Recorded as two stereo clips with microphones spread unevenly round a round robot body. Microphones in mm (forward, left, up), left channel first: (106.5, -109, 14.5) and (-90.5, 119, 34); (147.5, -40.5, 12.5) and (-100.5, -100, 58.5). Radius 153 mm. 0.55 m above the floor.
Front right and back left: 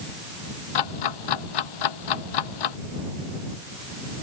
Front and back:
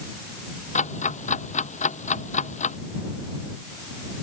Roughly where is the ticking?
Ahead right.